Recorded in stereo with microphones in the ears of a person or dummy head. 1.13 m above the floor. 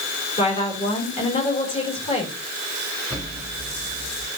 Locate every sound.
0.4 s a woman speaking: 35° left (ahead or behind), 5 m
3.1 s an explosion: 10° left (ahead or behind), 3 m